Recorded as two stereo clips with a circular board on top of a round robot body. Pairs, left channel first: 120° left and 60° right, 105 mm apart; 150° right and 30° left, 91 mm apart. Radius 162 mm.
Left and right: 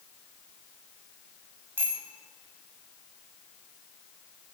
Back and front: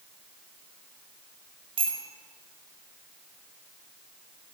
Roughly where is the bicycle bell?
Ahead.